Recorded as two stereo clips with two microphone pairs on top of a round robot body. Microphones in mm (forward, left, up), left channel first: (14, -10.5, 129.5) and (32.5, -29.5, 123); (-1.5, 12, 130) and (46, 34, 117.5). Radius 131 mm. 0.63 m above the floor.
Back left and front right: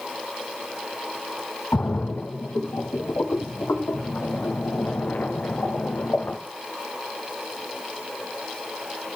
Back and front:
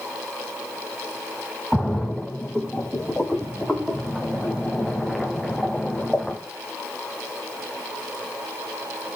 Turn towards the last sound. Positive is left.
turn(degrees=115)